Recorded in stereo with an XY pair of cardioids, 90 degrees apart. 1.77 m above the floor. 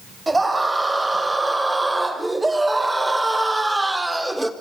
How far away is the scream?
About 8 m.